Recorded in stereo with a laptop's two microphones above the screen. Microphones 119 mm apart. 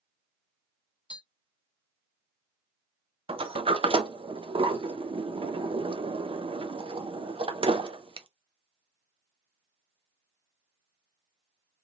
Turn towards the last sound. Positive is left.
turn(degrees=-50)  # may be behind; listen again after turning